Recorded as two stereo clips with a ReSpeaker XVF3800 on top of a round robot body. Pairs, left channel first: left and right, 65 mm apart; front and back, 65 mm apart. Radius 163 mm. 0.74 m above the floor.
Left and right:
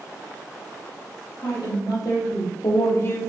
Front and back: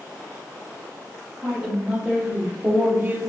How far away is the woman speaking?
About 1.6 m.